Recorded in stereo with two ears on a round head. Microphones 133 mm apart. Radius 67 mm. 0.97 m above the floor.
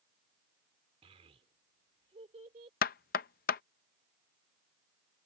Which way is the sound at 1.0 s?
45° right (ahead or behind).